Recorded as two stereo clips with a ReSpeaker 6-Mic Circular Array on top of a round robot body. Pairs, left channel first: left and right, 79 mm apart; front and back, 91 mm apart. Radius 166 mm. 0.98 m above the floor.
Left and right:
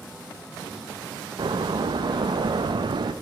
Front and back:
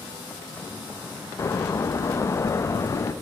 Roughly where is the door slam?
Ahead right.